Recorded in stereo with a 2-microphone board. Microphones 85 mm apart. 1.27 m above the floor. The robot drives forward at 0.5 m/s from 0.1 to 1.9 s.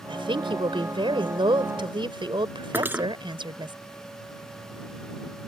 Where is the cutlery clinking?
25° right (ahead or behind).